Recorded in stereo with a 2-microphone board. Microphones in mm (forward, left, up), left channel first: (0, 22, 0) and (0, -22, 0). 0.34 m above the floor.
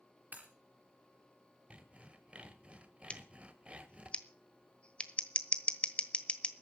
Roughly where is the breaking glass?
Right.